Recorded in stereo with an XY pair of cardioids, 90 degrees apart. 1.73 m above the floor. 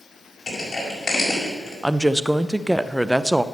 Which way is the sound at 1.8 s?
5° right.